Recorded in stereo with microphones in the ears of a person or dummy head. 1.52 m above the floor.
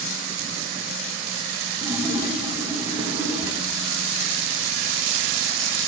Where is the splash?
10° right (ahead or behind), 0.8 m.